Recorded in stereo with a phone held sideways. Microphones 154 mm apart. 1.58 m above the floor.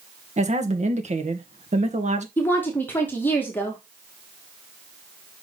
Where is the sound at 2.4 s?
10° left (ahead or behind), 2 m.